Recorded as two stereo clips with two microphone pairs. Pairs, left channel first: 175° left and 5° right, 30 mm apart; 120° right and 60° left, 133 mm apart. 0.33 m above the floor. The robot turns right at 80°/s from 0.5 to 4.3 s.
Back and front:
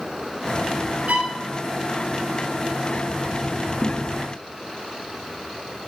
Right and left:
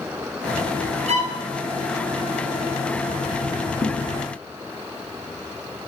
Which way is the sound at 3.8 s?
175° right.